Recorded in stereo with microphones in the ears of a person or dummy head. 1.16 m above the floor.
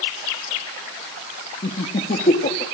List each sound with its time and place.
1.6 s laughter: 40° left (ahead or behind), 1.8 m